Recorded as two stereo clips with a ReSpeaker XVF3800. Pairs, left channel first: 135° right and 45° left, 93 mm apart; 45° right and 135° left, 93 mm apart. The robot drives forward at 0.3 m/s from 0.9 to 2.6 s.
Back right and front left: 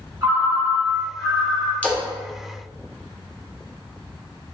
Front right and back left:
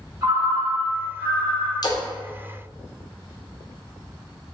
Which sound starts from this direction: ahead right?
A splash, at 1.8 s.